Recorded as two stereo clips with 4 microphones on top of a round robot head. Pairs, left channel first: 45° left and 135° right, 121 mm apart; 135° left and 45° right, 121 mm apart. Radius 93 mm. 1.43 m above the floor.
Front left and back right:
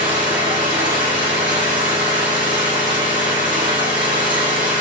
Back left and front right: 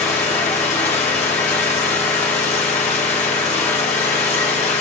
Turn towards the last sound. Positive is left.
turn(degrees=170)